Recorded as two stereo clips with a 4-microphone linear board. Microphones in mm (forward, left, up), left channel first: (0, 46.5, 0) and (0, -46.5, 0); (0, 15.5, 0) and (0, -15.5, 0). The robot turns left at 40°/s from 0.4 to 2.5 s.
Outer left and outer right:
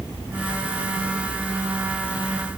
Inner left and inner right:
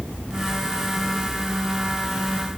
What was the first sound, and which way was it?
Only background noise.